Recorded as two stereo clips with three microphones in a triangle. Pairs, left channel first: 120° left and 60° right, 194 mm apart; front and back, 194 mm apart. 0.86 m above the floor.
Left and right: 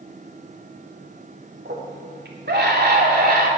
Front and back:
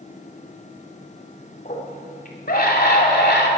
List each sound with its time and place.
1.6 s a scream: 45° right, 3 m; by 3.5 s 25° right, 2.5 m